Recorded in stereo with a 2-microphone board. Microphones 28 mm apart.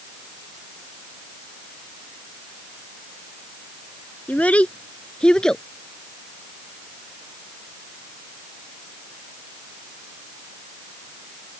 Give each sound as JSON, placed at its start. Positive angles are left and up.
{"t": 4.3, "sound": "a child speaking", "side_deg": 65}